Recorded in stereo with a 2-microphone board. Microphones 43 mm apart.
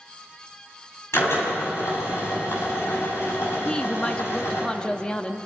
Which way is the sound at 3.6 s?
20° left (ahead or behind).